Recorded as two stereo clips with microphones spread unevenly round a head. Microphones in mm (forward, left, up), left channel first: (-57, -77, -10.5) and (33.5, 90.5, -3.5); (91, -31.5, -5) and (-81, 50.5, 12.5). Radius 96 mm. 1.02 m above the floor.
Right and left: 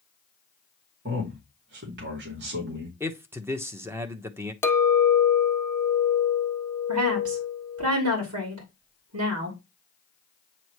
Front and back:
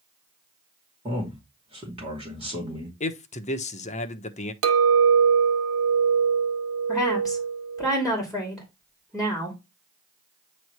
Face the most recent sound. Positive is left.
turn(degrees=65)